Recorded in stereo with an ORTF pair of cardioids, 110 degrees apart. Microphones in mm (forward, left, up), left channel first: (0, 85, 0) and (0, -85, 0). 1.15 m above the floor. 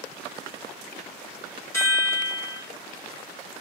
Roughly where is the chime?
Ahead.